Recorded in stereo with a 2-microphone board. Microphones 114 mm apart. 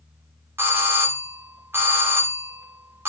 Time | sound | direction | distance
0.6 | a doorbell | 20° right (ahead or behind) | 1.3 m